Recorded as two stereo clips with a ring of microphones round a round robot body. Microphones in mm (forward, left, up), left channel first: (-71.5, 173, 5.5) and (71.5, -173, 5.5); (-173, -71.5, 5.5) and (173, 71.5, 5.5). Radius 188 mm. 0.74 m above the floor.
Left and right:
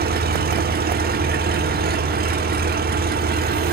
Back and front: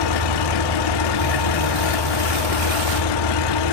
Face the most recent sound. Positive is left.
turn(degrees=-135)